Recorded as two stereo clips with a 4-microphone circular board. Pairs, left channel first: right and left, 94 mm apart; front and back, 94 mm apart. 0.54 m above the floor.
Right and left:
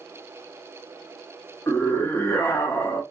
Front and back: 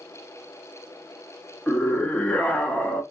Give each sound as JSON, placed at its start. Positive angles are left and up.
{"t": 1.7, "sound": "a scream", "azimuth_deg": -60, "distance_m": 0.7}